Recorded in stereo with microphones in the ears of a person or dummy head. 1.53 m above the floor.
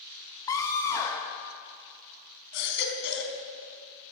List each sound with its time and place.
0.5 s a scream: 15° left (ahead or behind), 1.7 m
2.5 s a baby crying: 65° left (ahead or behind), 4 m